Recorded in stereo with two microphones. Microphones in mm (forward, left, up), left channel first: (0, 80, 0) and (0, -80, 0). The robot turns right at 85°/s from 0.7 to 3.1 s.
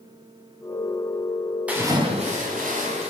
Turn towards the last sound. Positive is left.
turn(degrees=-50)